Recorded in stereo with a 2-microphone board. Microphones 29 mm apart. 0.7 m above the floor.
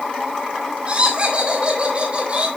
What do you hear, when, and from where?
0.9 s laughter: 35° right (ahead or behind), 3.5 m